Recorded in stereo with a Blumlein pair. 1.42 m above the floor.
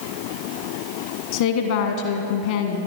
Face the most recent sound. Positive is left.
turn(degrees=55)